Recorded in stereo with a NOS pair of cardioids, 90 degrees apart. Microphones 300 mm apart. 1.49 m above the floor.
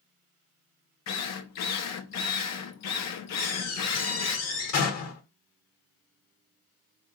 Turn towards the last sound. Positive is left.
turn(degrees=60)